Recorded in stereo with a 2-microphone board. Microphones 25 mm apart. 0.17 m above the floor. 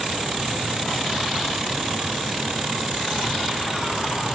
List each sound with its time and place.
Only background noise.